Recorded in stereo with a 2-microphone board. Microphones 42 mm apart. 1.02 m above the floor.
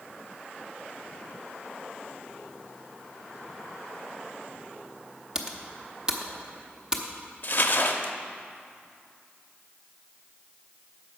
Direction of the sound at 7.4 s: 45° left (ahead or behind).